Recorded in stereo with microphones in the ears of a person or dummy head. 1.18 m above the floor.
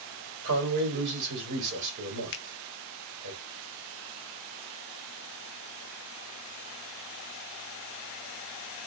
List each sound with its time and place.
0.4 s a man speaking: 65° right (ahead or behind), 2 m
2.3 s a finger snap: 60° left (ahead or behind), 0.6 m